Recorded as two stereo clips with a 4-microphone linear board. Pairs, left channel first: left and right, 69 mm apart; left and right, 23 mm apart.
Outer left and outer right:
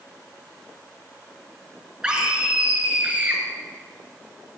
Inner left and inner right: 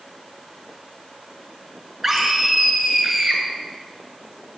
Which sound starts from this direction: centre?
A scream, at 2.0 s.